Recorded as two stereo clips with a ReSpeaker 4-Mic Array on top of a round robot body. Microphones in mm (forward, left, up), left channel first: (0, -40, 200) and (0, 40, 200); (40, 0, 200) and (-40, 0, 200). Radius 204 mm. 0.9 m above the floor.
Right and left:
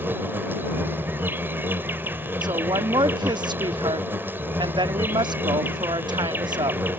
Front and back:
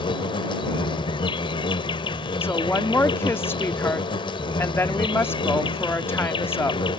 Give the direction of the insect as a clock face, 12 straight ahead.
11 o'clock.